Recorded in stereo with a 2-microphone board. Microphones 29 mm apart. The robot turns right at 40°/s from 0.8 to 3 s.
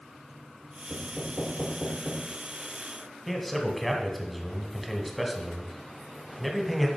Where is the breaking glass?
I don't hear breaking glass.